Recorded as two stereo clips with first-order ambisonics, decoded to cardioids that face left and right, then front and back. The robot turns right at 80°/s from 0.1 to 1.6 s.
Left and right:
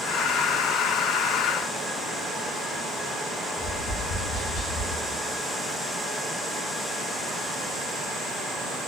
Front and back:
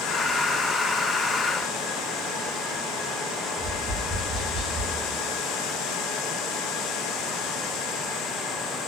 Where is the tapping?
75° left, 1.5 m.